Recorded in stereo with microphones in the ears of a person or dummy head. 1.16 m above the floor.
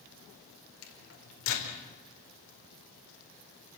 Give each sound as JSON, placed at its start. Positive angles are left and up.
{"t": 0.8, "sound": "a microwave", "side_deg": 75, "distance_m": 4.0}